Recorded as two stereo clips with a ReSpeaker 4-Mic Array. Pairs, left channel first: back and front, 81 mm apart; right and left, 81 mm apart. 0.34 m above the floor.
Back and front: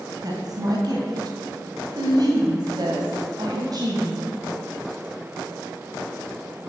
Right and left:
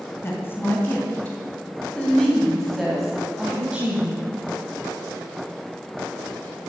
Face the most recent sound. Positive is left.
turn(degrees=25)